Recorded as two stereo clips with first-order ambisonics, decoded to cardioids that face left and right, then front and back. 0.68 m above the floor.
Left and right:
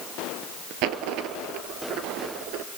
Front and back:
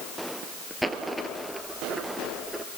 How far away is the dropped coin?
About 1.3 m.